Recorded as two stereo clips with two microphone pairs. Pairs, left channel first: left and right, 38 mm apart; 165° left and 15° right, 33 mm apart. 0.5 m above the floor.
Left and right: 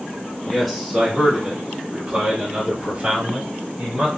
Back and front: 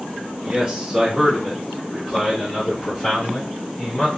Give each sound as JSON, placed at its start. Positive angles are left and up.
{"t": 0.5, "sound": "a man speaking", "azimuth_deg": 15, "distance_m": 1.4}